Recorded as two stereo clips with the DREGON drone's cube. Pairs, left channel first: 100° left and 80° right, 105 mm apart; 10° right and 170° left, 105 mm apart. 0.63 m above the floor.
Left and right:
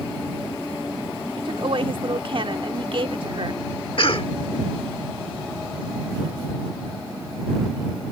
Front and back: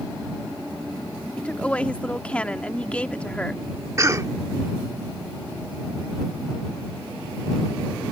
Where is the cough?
115° left.